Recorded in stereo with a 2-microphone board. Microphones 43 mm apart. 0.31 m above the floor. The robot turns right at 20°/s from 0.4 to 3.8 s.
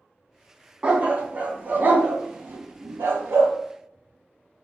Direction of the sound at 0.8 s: 25° right (ahead or behind).